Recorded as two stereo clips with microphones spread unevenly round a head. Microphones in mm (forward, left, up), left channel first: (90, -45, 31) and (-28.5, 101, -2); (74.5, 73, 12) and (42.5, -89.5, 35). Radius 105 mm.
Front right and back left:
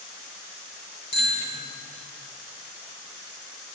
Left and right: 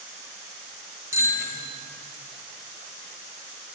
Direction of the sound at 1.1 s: 25° right.